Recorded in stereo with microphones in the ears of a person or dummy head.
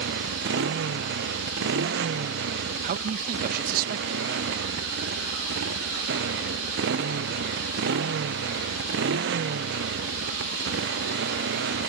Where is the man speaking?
50° right (ahead or behind).